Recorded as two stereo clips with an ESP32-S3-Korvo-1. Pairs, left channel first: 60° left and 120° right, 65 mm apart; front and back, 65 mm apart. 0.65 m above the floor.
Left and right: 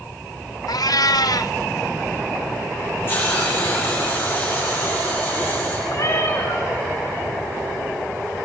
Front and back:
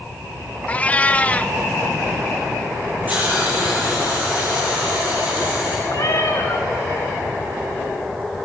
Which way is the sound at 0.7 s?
65° left.